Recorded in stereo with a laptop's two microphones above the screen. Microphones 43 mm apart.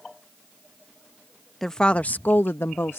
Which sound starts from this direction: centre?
A woman speaking, at 1.6 s.